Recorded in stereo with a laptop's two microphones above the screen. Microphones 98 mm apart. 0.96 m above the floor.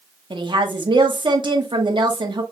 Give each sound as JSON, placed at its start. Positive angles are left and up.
{"t": 0.3, "sound": "a woman speaking", "side_deg": -60, "distance_m": 1.1}